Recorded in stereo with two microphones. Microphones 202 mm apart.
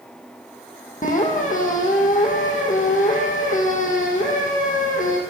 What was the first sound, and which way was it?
A squeak, 40° left (ahead or behind).